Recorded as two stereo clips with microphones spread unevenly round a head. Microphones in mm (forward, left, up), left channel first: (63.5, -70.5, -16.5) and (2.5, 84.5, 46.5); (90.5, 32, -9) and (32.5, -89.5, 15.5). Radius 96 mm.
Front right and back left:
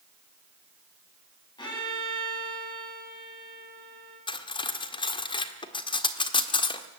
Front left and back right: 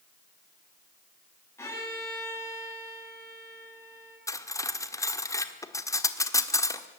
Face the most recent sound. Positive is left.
turn(degrees=-5)